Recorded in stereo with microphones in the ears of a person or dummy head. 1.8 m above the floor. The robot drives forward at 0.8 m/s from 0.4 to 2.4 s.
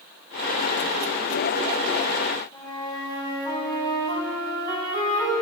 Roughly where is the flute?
Left.